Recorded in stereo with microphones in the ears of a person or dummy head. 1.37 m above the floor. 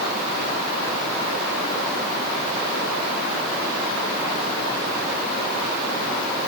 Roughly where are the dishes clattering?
No dishes clattering in this recording.